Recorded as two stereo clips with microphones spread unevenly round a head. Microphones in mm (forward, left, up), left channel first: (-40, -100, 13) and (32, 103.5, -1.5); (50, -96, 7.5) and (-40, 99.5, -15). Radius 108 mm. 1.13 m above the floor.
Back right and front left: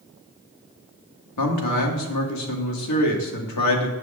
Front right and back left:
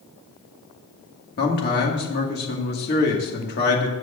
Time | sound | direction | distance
1.4 | a man speaking | 115° right | 2 m